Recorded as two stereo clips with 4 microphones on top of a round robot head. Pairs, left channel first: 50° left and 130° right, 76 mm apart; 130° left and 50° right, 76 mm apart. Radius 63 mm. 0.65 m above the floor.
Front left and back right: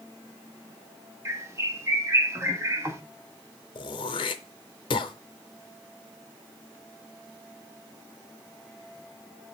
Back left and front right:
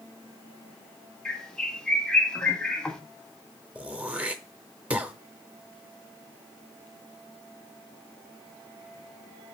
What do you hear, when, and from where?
1.2 s a bird: 155° right, 1.3 m
3.8 s throat clearing: 25° left, 0.6 m